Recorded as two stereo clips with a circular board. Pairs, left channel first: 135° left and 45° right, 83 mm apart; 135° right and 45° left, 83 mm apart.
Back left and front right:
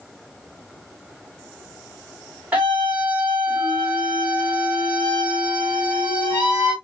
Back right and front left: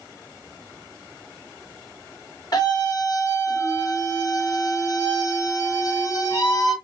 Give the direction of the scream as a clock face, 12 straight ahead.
4 o'clock.